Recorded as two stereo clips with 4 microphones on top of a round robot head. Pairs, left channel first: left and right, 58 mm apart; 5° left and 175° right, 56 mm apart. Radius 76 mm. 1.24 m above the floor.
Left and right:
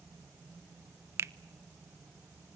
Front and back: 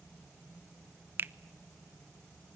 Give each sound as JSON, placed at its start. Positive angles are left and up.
{"t": 1.2, "sound": "a finger snap", "azimuth_deg": -130, "distance_m": 0.6}